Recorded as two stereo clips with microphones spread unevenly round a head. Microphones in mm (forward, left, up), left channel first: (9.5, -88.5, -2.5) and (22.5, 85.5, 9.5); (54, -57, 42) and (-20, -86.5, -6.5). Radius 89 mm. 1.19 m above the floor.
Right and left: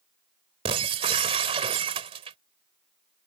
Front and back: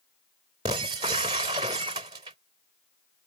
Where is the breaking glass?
145° left.